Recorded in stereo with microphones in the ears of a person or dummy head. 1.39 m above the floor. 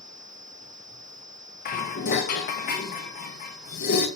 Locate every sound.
1.6 s dishes clattering: 40° left (ahead or behind), 1.0 m